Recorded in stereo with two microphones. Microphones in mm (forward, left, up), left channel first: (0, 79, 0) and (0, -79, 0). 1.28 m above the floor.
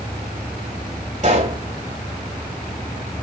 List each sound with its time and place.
1.2 s a pop: 50° right (ahead or behind), 3.5 m